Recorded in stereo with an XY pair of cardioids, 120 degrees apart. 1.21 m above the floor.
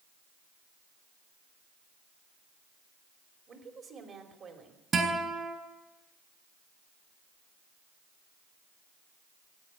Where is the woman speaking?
45° right, 3 m.